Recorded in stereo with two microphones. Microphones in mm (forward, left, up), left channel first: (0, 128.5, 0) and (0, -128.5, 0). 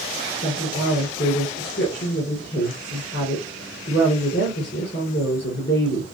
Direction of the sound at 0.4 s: 45° left (ahead or behind).